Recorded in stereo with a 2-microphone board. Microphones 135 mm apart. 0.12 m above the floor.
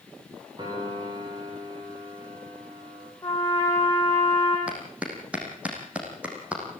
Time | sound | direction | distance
0.6 | a piano | 30° right (ahead or behind) | 8.5 m
3.2 | a trumpet | 20° left (ahead or behind) | 6 m
4.7 | a clap | 10° right (ahead or behind) | 5.5 m